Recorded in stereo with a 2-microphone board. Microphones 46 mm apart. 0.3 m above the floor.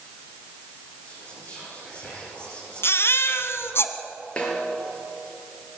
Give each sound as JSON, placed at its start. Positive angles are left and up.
{"t": 1.1, "sound": "whispering", "side_deg": 40, "distance_m": 7.0}
{"t": 2.8, "sound": "a baby crying", "side_deg": 65, "distance_m": 1.8}
{"t": 4.4, "sound": "a snare drum", "side_deg": 25, "distance_m": 6.0}